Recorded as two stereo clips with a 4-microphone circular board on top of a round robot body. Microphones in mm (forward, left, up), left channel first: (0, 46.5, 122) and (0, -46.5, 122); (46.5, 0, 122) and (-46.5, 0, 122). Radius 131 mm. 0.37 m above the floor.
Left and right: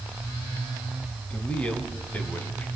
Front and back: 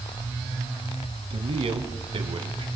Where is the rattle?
I don't hear a rattle.